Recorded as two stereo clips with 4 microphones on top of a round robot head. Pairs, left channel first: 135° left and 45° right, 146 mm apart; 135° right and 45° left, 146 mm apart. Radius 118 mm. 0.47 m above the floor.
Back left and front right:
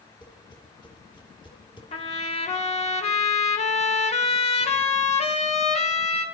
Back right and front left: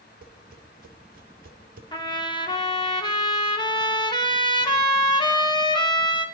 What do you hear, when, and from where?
0.2 s tapping: 75° left, 2.5 m
1.9 s a trumpet: 170° left, 2.5 m